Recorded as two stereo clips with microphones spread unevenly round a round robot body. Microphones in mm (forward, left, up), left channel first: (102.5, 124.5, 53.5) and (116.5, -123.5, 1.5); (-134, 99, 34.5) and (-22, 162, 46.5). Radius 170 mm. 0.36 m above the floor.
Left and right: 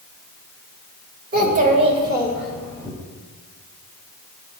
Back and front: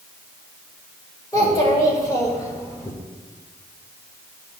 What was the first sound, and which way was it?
A child speaking, 100° right.